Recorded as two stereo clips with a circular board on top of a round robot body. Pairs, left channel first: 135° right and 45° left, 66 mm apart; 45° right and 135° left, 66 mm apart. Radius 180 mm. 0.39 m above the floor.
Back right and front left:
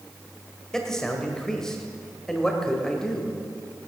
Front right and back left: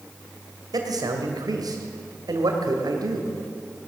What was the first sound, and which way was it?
A man speaking, 145° left.